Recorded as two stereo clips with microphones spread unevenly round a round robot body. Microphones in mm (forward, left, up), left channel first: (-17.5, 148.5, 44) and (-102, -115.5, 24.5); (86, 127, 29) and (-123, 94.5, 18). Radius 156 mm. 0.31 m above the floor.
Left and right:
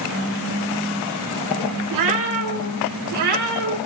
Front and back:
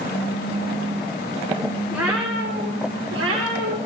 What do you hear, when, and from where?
1.9 s a cat meowing: 85° right, 1.9 m; by 3.8 s 130° right, 3.5 m